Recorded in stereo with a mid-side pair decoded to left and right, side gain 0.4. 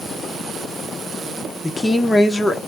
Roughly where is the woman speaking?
Ahead.